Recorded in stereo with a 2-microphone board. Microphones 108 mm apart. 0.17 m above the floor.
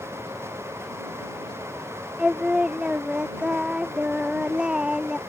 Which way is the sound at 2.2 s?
10° right (ahead or behind).